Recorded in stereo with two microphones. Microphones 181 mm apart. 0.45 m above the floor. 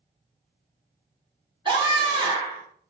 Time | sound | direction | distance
1.6 | a scream | 25° right (ahead or behind) | 1.3 m